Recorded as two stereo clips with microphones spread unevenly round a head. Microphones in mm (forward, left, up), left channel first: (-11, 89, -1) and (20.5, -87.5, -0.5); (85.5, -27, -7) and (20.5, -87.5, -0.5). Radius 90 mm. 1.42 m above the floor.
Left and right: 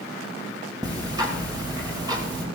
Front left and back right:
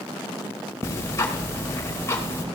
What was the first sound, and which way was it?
Ticking, 10° right.